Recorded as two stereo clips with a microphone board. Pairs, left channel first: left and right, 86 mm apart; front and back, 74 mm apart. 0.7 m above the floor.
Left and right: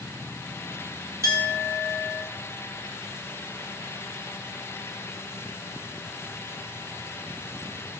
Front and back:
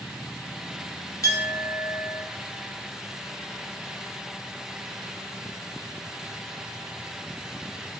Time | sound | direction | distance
1.2 | a clink | 40° right | 0.6 m